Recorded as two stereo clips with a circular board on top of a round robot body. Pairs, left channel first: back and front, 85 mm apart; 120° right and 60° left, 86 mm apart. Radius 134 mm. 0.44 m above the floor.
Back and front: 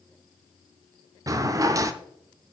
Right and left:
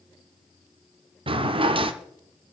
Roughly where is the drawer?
Ahead left.